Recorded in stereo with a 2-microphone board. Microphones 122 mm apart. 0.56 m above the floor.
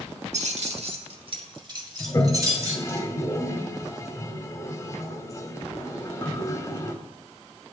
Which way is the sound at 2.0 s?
25° left (ahead or behind).